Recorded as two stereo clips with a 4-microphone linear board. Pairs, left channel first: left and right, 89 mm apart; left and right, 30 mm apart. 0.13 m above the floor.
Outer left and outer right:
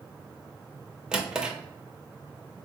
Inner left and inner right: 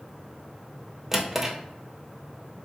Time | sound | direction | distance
1.1 | a drawer | 10° right (ahead or behind) | 0.7 m